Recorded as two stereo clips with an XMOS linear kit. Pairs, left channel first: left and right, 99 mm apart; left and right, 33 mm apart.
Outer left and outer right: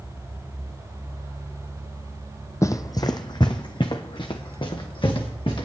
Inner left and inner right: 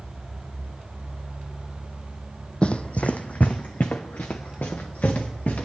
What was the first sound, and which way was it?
Running footsteps, 30° left (ahead or behind).